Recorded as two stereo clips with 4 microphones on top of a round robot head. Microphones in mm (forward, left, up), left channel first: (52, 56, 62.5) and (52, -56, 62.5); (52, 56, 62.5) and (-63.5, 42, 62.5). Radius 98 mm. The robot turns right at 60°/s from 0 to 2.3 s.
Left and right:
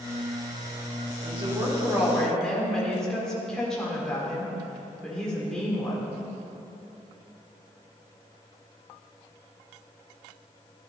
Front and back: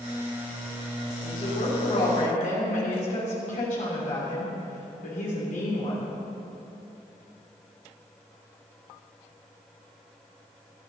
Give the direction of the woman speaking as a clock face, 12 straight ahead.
2 o'clock.